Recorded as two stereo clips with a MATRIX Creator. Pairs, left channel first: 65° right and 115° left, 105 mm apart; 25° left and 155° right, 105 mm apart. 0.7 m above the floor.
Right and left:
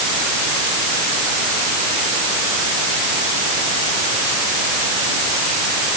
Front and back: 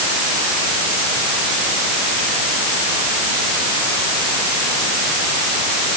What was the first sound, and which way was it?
Only background noise.